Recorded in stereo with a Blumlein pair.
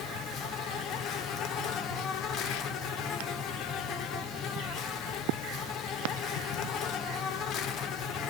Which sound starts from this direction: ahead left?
An insect, at 0.0 s.